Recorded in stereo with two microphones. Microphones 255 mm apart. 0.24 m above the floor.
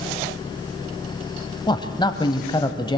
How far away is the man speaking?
About 1.0 m.